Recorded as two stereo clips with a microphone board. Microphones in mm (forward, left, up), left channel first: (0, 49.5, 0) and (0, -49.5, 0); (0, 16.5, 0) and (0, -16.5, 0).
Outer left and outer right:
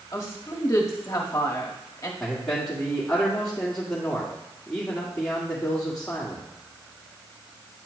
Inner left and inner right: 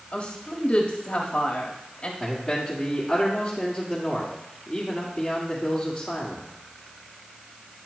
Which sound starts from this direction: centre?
A man speaking, at 2.2 s.